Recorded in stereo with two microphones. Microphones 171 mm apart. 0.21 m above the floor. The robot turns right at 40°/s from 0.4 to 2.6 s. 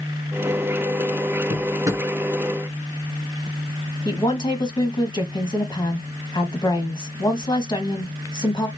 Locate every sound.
1.5 s a drawer: 30° right (ahead or behind), 1.4 m; by 2.1 s 10° right (ahead or behind), 1.4 m
4.0 s a woman speaking: 25° left (ahead or behind), 1.5 m